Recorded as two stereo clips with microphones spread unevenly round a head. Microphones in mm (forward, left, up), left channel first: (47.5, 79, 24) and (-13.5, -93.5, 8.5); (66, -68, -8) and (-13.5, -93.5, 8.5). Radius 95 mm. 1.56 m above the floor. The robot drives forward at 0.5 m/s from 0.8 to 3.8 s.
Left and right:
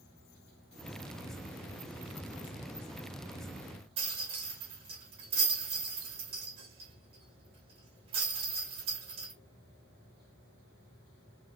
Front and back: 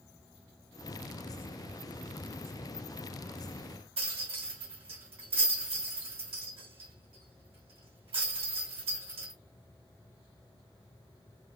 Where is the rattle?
175° right, 1.8 m.